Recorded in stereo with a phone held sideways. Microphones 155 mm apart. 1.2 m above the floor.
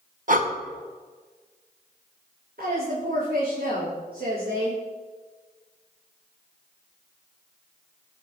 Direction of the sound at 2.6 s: 75° right (ahead or behind).